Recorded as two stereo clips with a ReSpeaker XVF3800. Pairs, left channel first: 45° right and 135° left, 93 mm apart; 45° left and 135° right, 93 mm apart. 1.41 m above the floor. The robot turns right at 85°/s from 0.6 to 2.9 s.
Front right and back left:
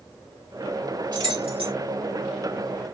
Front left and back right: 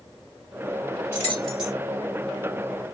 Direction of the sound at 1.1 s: 100° left.